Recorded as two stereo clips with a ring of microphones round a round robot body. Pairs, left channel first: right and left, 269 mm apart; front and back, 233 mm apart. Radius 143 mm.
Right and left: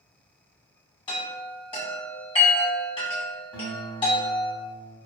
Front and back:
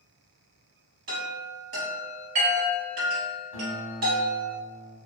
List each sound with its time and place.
1.1 s a chime: 155° right, 1.9 m
3.5 s a guitar: 175° left, 1.2 m